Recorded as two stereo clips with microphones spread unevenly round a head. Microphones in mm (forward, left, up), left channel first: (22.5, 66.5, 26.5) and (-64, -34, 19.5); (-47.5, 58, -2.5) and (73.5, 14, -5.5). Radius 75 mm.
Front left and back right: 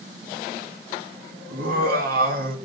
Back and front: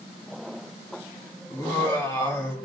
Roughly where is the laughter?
Behind right.